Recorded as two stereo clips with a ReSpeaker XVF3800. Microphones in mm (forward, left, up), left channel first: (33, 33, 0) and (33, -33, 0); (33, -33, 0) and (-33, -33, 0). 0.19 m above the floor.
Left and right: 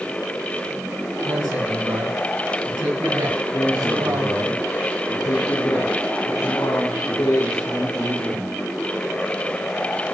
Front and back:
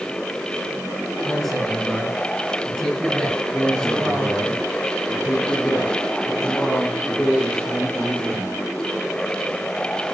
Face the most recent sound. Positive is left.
turn(degrees=70)